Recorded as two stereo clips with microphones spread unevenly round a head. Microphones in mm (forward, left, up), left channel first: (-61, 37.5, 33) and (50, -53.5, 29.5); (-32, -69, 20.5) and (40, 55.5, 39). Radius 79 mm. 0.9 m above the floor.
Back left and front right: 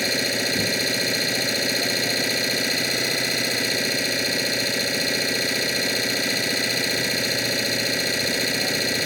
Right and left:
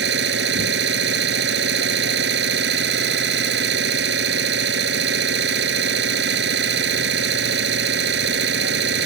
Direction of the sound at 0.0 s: 50° left.